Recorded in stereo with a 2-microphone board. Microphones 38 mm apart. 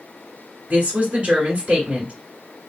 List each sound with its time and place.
0.7 s a woman speaking: 35° right (ahead or behind), 1.5 m